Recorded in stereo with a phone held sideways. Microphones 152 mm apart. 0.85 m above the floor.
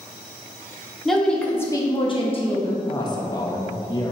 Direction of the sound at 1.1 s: Centre (ahead or behind).